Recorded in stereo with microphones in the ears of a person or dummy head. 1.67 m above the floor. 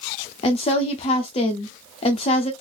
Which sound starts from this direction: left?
A woman speaking, at 0.4 s.